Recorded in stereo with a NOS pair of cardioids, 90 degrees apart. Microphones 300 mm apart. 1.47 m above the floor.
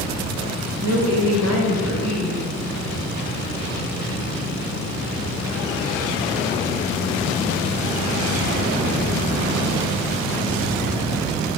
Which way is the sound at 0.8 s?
55° right.